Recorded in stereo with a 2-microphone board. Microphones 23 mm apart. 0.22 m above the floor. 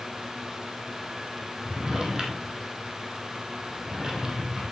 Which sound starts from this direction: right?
A drawer, at 1.6 s.